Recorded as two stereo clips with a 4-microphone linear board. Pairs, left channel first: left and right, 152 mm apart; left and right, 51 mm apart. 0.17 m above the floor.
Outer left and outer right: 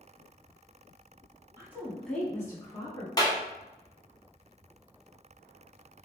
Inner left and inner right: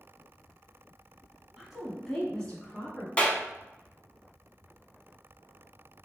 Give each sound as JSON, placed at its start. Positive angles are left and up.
{"t": 1.6, "sound": "a woman speaking", "side_deg": -15, "distance_m": 1.0}
{"t": 3.2, "sound": "a clap", "side_deg": 25, "distance_m": 0.8}